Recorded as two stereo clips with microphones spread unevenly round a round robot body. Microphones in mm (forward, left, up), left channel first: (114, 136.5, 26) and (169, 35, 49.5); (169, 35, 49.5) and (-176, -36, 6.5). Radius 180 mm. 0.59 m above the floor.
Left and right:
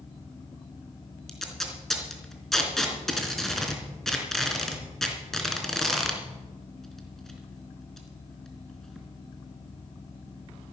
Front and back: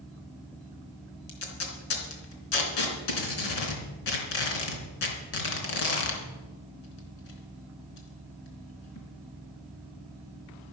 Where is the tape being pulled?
30° left, 3.5 m.